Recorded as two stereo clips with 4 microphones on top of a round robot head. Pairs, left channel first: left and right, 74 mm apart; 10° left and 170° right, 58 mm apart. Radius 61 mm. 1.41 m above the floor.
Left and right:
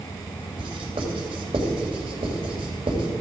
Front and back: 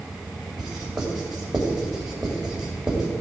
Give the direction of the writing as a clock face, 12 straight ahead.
3 o'clock.